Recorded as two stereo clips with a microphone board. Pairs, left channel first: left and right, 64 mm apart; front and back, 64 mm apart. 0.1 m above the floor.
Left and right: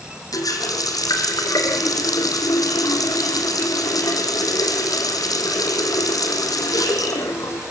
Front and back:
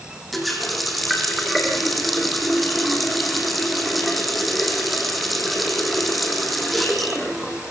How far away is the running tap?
About 3.5 m.